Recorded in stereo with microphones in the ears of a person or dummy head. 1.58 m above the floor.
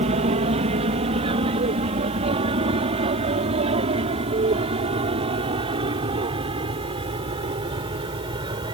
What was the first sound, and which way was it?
An aircraft, 35° right (ahead or behind).